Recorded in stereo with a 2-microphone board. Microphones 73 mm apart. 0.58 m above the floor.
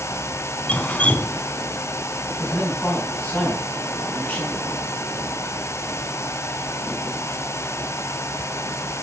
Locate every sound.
0.7 s dripping: 20° left (ahead or behind), 1.2 m
2.4 s a man speaking: 25° left (ahead or behind), 5 m